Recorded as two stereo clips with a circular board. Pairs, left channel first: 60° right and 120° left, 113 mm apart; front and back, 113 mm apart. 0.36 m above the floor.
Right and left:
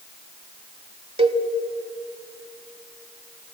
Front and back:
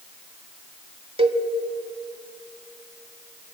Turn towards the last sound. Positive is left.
turn(degrees=150)